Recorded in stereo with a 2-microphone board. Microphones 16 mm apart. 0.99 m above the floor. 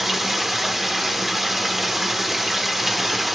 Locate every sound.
0.0 s running water: 10° right (ahead or behind), 0.8 m